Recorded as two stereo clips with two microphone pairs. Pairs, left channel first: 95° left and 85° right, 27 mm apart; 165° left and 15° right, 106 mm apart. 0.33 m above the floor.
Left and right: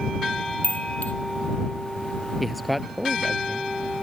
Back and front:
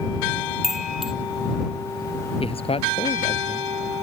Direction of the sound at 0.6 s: 70° left.